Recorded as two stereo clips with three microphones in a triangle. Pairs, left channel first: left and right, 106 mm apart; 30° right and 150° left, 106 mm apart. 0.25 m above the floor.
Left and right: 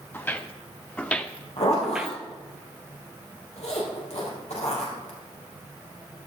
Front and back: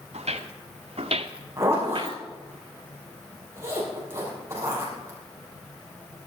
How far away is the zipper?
About 5.5 m.